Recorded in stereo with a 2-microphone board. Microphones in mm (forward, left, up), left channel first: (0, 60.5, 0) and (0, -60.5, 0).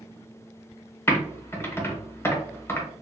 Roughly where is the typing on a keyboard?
Left.